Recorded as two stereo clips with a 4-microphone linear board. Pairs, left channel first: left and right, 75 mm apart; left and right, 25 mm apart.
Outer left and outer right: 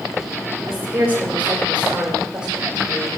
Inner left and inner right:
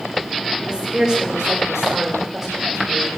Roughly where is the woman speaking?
Right.